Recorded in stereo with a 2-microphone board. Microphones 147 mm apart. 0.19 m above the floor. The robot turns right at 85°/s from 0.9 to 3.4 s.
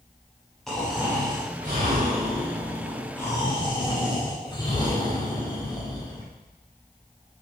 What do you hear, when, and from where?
0.7 s snoring: 175° left, 5.5 m; by 6.3 s 30° left, 5.5 m